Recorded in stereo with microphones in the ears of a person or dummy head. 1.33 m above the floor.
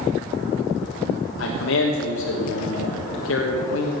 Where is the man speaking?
70° left (ahead or behind), 1.4 m.